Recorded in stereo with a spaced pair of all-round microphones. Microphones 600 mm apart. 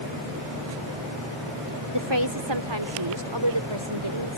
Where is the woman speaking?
45° right (ahead or behind); by 4.4 s 50° right (ahead or behind).